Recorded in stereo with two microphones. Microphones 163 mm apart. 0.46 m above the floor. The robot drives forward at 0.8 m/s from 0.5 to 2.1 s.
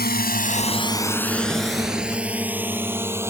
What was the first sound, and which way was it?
A drone, 75° left (ahead or behind).